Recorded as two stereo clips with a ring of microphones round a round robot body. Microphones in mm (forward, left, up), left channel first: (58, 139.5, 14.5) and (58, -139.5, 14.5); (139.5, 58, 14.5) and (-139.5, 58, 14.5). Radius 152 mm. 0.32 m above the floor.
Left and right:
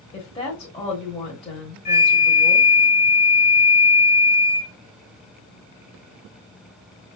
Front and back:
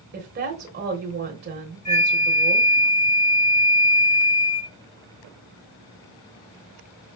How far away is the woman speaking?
About 1.3 m.